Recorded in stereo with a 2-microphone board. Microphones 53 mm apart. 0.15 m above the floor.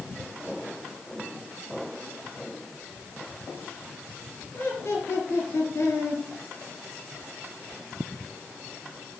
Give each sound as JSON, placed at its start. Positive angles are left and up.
{"t": 4.5, "sound": "laughter", "side_deg": 55, "distance_m": 3.0}